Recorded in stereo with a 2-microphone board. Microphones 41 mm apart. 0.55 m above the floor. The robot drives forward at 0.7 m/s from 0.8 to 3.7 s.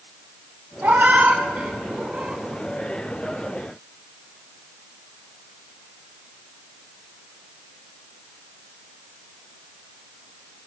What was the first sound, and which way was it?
A cat meowing, 60° right (ahead or behind).